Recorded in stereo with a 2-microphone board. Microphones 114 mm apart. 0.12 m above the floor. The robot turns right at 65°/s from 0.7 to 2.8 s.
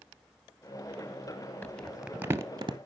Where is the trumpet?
No trumpet in this recording.